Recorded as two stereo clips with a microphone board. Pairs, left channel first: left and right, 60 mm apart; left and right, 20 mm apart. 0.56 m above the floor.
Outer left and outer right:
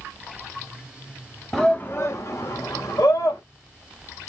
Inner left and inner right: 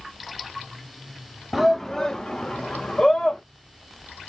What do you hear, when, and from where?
1.5 s a shout: 5° left (ahead or behind), 0.7 m; by 3.4 s 75° left (ahead or behind), 2.5 m